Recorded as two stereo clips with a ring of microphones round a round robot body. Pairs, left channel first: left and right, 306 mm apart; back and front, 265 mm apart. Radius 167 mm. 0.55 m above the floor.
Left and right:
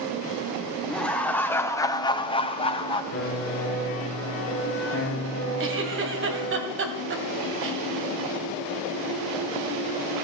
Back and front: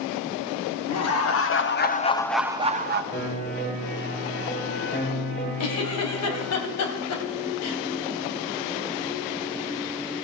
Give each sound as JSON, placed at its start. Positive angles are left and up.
{"t": 0.9, "sound": "laughter", "azimuth_deg": 175, "distance_m": 1.9}
{"t": 3.1, "sound": "a piano", "azimuth_deg": 140, "distance_m": 5.0}
{"t": 5.6, "sound": "a giggle", "azimuth_deg": -140, "distance_m": 1.9}